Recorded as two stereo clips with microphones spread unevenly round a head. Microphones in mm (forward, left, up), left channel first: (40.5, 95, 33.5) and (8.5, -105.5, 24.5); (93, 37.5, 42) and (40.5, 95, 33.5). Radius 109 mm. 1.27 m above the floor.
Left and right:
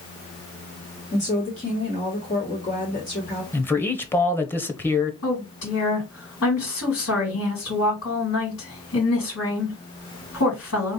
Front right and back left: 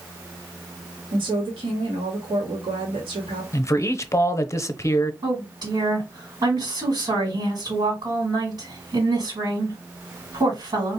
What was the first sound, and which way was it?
A woman speaking, 140° left.